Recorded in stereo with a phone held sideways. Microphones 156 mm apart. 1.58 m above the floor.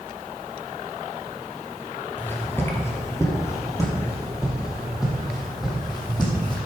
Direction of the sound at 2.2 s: 15° left (ahead or behind).